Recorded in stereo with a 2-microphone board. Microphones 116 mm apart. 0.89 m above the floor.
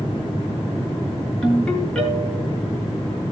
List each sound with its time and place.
1.4 s a ringtone: 5° left (ahead or behind), 8 m